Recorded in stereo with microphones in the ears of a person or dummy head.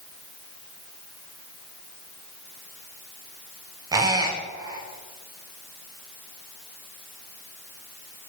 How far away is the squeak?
About 0.7 m.